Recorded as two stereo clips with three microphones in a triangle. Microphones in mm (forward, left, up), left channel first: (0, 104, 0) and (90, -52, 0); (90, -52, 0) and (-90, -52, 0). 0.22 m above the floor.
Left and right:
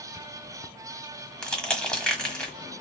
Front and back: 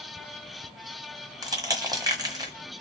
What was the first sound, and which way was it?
Crushing, 165° right.